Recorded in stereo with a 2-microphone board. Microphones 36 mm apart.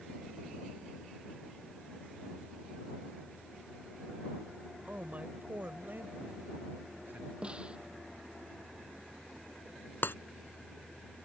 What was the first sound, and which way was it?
A man speaking, 40° right (ahead or behind).